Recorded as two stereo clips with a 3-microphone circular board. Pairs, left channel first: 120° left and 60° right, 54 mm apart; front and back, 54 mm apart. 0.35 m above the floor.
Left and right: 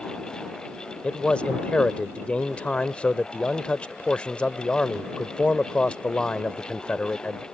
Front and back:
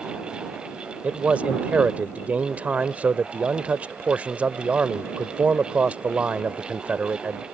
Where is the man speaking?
165° left.